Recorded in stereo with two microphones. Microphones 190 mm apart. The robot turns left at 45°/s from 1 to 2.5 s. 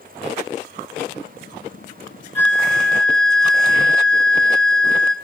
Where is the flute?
10° left (ahead or behind), 1.0 m; by 5.1 s 5° left (ahead or behind), 1.0 m.